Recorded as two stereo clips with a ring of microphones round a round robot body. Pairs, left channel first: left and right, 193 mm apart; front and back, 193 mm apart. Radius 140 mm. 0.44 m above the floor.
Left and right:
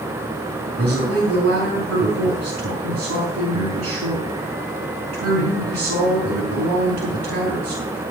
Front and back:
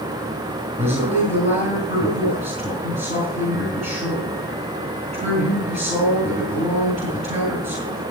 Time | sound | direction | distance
0.8 | a man speaking | 115° right | 5 m